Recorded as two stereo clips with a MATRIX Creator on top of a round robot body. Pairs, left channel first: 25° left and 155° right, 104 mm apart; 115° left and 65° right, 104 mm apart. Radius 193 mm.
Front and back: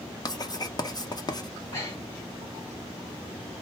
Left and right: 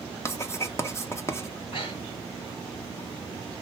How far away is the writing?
About 1.0 m.